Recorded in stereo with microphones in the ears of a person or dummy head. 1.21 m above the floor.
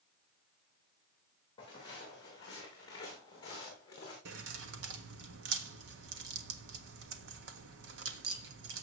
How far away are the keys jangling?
About 1.3 m.